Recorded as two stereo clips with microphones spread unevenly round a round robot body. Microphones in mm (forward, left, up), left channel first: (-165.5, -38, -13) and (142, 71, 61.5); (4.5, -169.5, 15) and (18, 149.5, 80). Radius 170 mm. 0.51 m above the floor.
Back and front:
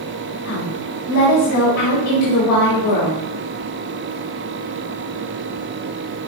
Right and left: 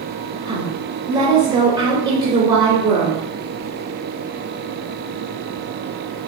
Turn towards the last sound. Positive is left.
turn(degrees=170)